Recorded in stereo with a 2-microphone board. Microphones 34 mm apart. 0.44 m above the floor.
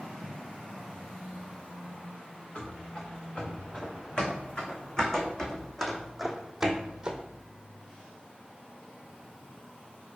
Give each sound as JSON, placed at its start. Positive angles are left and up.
{"t": 2.5, "sound": "running footsteps", "side_deg": 35, "distance_m": 3.5}